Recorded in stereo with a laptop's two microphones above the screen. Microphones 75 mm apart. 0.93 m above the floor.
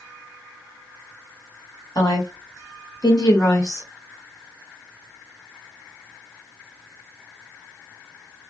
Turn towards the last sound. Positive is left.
turn(degrees=35)  # may be behind; listen again after turning